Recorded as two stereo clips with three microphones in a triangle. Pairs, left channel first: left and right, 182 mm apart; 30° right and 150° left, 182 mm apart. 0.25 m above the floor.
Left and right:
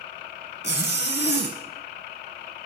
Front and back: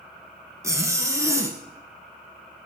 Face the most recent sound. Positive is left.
turn(degrees=75)